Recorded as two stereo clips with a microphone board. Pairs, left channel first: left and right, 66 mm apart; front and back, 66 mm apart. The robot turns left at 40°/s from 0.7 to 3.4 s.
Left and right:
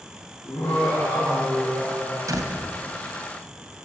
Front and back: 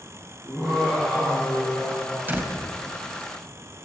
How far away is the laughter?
About 5.5 m.